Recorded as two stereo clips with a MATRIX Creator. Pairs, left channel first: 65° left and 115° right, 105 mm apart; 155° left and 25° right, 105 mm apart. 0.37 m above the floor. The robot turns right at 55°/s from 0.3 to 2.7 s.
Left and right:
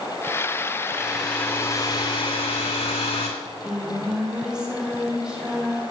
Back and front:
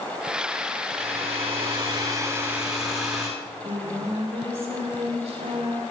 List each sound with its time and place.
0.9 s a hair dryer: 35° right, 8 m; by 3.3 s 65° left, 8 m
3.4 s singing: 30° right, 6.5 m